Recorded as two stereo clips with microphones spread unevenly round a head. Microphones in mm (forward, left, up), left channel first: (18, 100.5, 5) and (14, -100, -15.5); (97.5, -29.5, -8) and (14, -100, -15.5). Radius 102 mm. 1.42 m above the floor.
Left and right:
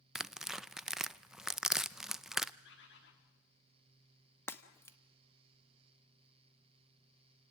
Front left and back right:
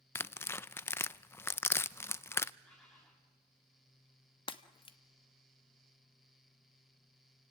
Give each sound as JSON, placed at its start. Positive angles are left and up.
{"t": 0.1, "sound": "tearing paper", "azimuth_deg": 5, "distance_m": 0.5}
{"t": 2.6, "sound": "a bird", "azimuth_deg": 125, "distance_m": 3.0}
{"t": 4.5, "sound": "breaking glass", "azimuth_deg": 15, "distance_m": 1.2}